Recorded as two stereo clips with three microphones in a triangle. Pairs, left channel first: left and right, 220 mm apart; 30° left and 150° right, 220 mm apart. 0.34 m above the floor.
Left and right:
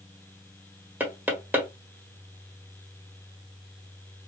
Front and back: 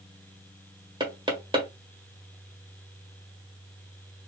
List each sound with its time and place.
1.0 s knocking: 155° right, 1.2 m